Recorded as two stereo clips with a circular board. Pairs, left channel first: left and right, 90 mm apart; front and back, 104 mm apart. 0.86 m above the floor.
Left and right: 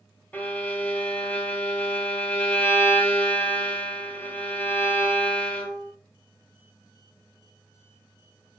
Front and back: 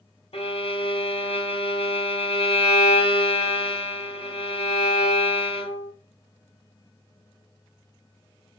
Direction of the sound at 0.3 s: 20° left.